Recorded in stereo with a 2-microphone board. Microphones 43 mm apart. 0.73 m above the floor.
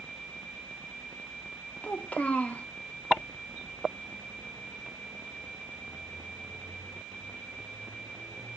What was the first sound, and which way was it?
A child speaking, 35° left (ahead or behind).